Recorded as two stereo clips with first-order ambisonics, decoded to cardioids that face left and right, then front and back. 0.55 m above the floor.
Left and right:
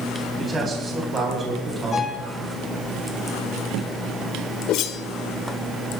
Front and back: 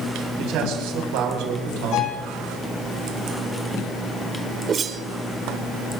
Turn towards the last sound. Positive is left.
turn(degrees=120)